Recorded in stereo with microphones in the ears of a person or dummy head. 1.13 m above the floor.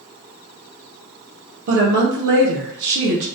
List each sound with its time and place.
1.7 s a woman speaking: 70° right (ahead or behind), 0.6 m